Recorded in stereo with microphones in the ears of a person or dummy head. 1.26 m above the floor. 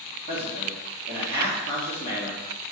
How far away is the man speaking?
About 3 m.